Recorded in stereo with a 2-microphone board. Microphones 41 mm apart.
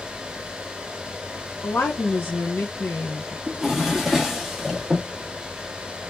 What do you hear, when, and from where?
1.6 s a woman speaking: 70° left (ahead or behind), 0.7 m
3.5 s a drawer: 5° right (ahead or behind), 0.7 m